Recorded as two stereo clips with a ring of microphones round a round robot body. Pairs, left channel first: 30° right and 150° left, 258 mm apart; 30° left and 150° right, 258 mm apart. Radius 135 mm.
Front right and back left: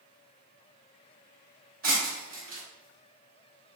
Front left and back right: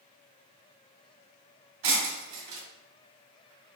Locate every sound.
1.8 s breaking glass: 150° right, 2.0 m